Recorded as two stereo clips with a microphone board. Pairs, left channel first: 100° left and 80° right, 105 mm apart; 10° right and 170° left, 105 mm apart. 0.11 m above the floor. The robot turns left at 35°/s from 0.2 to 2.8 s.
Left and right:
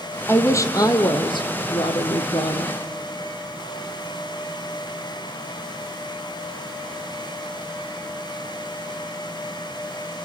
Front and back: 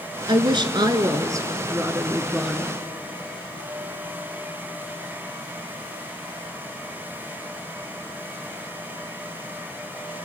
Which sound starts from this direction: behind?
A woman speaking, at 0.3 s.